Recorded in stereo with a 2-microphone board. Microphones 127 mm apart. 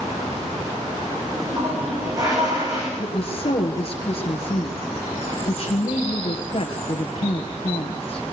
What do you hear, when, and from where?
1.3 s a toilet flushing: 30° right (ahead or behind), 7 m
3.0 s a woman speaking: 50° left (ahead or behind), 3 m